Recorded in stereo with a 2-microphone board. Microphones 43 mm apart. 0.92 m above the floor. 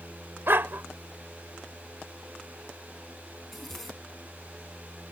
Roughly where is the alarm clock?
No alarm clock in this recording.